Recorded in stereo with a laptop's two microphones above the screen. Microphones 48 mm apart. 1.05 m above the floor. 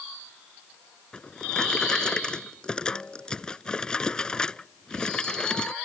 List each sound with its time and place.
1.1 s a drawer: 20° left (ahead or behind)